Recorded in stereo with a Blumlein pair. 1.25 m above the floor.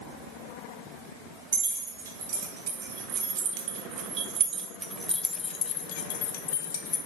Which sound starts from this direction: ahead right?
Keys jangling, at 1.5 s.